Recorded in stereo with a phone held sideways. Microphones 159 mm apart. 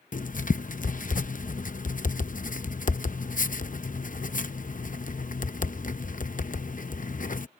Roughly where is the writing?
Left.